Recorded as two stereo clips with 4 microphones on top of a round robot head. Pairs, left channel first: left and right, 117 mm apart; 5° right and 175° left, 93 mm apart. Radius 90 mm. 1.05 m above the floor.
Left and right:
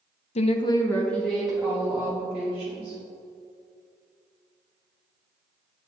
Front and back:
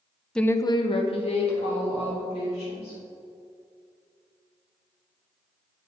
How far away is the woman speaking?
About 0.6 m.